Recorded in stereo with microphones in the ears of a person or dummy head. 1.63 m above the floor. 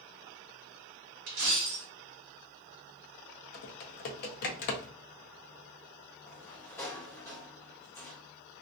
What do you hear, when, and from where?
1.3 s a dropped coin: 40° right (ahead or behind), 1.3 m
3.5 s typing on a keyboard: 55° left (ahead or behind), 0.6 m
6.3 s a sliding door: 15° left (ahead or behind), 0.5 m